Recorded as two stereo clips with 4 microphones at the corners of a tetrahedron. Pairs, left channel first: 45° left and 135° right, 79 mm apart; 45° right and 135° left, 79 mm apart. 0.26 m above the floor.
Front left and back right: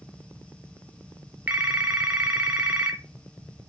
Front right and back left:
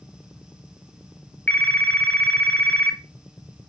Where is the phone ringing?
90° right, 0.9 m.